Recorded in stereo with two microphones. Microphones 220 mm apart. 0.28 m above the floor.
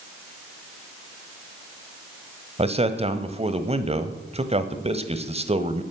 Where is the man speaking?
30° right (ahead or behind), 1.3 m.